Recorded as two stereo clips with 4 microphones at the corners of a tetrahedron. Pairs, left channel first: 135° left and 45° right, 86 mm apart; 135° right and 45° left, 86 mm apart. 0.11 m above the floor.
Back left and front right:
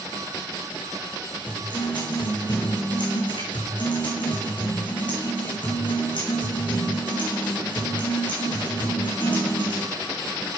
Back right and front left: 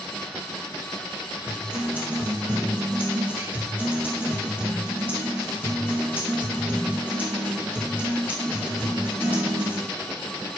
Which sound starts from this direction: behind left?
A guitar, at 1.5 s.